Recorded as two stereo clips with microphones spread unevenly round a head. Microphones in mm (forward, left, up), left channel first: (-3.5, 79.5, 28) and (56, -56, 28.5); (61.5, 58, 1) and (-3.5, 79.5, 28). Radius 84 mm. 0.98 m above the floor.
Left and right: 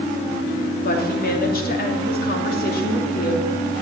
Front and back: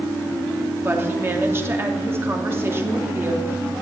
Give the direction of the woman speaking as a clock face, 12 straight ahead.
9 o'clock.